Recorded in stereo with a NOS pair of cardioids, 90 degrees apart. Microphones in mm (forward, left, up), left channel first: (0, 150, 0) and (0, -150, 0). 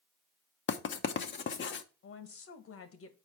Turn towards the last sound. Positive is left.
turn(degrees=50)